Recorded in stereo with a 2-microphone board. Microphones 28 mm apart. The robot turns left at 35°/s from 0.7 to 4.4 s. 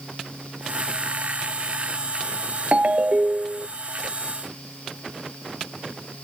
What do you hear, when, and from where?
2.7 s a ringtone: 85° right; by 3.7 s 120° right